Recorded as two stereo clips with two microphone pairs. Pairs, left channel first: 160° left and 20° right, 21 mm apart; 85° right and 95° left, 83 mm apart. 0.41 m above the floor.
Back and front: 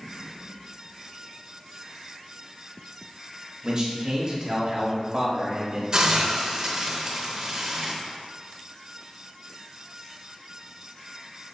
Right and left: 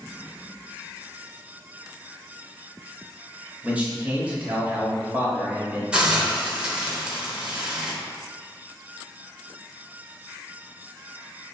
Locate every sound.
3.6 s a man speaking: 25° left, 1.4 m
5.9 s a hiss: 20° left, 0.9 m